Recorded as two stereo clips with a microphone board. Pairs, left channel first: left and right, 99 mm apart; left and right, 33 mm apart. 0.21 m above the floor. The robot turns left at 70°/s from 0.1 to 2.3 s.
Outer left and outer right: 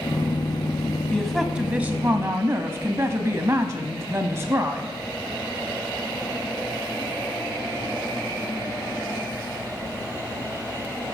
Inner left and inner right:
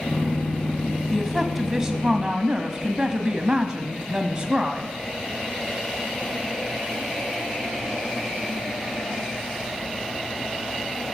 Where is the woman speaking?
10° left (ahead or behind), 1.5 m; by 4.9 s 25° right (ahead or behind), 1.5 m.